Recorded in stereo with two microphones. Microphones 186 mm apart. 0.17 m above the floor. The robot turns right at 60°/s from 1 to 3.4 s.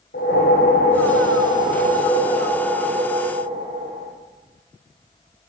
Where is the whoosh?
75° left, 7.5 m; by 4.1 s 140° right, 7.5 m.